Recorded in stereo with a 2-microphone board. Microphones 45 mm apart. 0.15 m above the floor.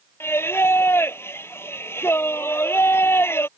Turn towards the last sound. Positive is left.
turn(degrees=65)  # may be behind; listen again after turning